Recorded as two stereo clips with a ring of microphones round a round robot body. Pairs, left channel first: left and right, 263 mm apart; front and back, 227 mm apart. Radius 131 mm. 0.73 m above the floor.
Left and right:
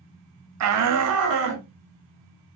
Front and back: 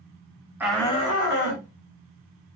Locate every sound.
0.6 s a shout: 100° right, 0.7 m; by 1.6 s 45° right, 1.5 m